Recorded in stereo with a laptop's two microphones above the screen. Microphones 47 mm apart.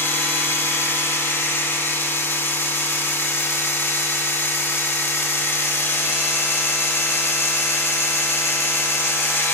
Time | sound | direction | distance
0.0 | a machine running | 60° left (ahead or behind) | 0.9 m